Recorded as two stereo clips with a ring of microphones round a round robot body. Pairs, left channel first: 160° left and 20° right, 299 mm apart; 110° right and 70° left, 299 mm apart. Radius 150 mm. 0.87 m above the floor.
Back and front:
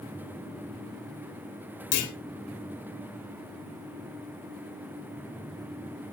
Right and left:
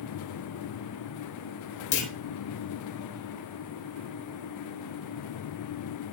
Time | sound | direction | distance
1.9 | a clunk | 160° right | 3.5 m